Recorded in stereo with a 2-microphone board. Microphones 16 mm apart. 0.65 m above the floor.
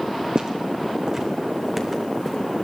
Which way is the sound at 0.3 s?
60° right (ahead or behind).